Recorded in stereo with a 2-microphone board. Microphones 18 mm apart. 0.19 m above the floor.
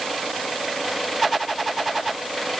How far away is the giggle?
I don't hear a giggle.